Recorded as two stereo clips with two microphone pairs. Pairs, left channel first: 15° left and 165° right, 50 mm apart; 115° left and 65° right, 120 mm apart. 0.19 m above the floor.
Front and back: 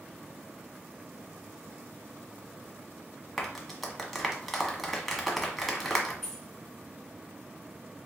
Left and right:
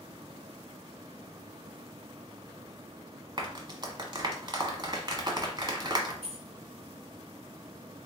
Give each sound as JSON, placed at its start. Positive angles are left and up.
{"t": 3.4, "sound": "a clap", "azimuth_deg": -70, "distance_m": 1.0}
{"t": 6.2, "sound": "keys jangling", "azimuth_deg": -70, "distance_m": 1.3}